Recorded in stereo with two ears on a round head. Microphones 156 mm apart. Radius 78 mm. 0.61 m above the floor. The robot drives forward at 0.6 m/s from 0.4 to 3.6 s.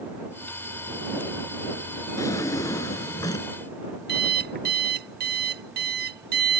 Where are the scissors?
No scissors in this recording.